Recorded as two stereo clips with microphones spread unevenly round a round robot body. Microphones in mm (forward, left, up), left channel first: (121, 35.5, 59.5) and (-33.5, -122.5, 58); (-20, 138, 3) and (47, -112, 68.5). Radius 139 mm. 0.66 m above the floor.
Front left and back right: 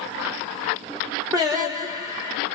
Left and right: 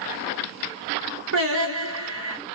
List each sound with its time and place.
1.3 s singing: 70° right, 1.2 m